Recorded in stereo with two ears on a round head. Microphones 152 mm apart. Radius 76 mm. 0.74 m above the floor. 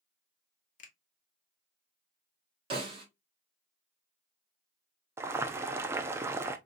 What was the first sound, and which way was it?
A finger snap, 50° left (ahead or behind).